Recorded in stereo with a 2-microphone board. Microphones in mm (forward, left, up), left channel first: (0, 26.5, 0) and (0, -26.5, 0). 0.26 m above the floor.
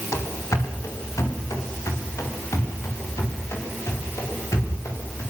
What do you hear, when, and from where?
0.1 s running footsteps: 80° left, 5.5 m; by 5.2 s 75° left (ahead or behind), 12 m